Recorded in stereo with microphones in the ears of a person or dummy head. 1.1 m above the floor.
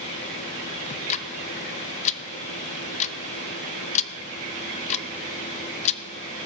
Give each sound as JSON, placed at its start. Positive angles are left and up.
{"t": 0.9, "sound": "ticking", "side_deg": 45, "distance_m": 0.7}